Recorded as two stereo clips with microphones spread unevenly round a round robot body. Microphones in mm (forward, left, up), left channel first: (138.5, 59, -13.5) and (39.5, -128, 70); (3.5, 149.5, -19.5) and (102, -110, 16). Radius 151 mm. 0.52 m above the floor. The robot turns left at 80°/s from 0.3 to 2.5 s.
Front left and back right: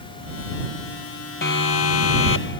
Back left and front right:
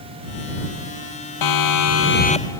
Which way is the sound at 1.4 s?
120° left.